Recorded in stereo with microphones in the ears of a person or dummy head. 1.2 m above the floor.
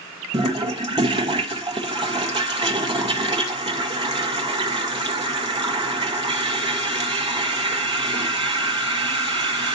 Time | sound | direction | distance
0.3 | a toilet flushing | 20° right (ahead or behind) | 0.9 m